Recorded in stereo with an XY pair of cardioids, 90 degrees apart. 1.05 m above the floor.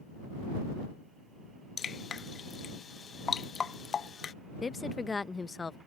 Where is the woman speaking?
30° left.